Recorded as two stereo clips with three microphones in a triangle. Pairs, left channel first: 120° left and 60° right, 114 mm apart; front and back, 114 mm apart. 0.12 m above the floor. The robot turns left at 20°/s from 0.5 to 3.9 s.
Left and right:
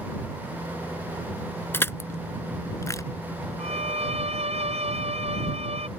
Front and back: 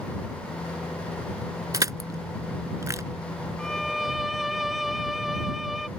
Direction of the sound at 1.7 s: 170° left.